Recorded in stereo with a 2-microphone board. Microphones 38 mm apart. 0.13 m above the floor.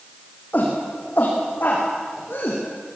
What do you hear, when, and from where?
0.5 s a shout: 50° left (ahead or behind), 7 m; by 2.6 s 65° left (ahead or behind), 6.5 m